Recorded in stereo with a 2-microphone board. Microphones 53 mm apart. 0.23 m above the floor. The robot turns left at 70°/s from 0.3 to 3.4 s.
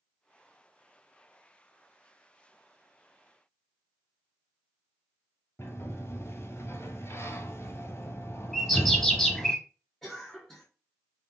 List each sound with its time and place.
5.6 s a sliding door: 55° left (ahead or behind), 0.8 m
8.5 s a bird: 5° left (ahead or behind), 0.9 m
10.0 s a cough: 10° left (ahead or behind), 2.5 m